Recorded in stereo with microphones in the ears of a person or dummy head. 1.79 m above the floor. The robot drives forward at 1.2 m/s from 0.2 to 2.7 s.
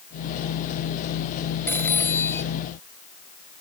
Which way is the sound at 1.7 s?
5° left (ahead or behind).